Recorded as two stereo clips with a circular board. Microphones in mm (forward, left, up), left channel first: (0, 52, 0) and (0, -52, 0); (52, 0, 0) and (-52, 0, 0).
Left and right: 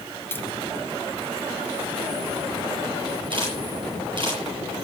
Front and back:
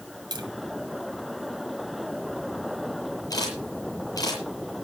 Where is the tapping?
155° left, 1.8 m.